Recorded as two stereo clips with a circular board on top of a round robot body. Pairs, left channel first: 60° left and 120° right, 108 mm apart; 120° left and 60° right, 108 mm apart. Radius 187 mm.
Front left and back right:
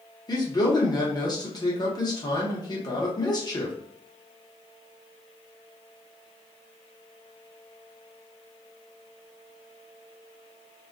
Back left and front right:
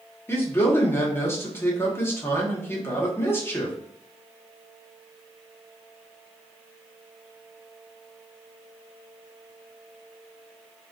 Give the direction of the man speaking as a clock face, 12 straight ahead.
10 o'clock.